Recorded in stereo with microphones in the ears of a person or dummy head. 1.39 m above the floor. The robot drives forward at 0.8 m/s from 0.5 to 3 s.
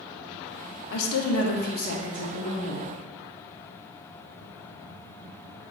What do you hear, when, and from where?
0.9 s a woman speaking: 70° left (ahead or behind), 0.6 m; by 2.9 s 20° left (ahead or behind), 1.5 m